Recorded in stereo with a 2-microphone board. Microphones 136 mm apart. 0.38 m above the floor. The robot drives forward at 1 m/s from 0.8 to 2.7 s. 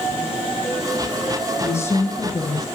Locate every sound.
1.6 s a woman speaking: 20° left (ahead or behind), 3 m; by 2.7 s 25° left (ahead or behind), 1.9 m